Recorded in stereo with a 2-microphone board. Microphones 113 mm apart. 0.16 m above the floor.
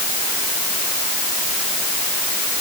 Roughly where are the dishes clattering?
No dishes clattering in this recording.